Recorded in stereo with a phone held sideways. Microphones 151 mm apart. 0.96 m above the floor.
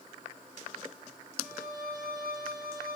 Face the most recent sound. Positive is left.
turn(degrees=85)